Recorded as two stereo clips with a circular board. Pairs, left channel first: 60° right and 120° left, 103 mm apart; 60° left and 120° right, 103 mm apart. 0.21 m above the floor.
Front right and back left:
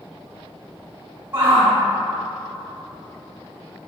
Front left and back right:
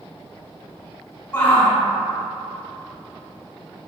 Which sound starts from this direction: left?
A shout, at 1.3 s.